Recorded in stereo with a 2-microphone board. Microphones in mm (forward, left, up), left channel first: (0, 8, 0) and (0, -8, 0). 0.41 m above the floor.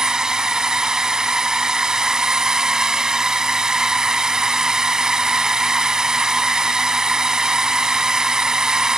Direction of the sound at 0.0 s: 45° right (ahead or behind).